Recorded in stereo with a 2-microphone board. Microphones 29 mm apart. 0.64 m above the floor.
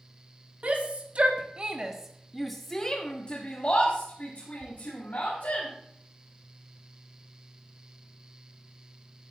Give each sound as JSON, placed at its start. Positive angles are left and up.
{"t": 0.6, "sound": "a shout", "side_deg": -50, "distance_m": 1.6}